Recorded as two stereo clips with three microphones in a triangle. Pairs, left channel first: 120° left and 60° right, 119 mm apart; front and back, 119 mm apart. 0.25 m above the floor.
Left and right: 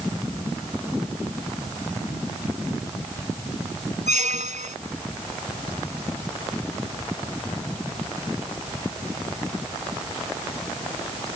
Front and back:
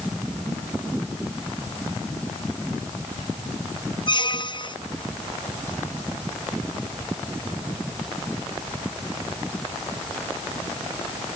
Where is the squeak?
50° right.